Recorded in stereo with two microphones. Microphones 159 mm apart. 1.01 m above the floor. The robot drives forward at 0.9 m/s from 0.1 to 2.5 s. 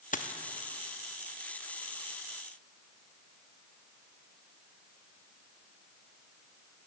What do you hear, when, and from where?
0.1 s a dropped coin: 55° left (ahead or behind), 0.6 m; by 0.3 s 50° left (ahead or behind), 0.6 m